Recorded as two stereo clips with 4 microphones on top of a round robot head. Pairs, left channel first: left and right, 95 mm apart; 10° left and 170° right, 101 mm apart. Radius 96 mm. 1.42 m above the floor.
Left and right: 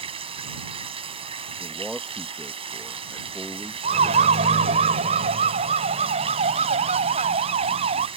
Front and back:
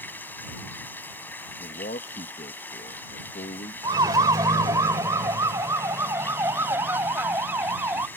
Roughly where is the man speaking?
Ahead.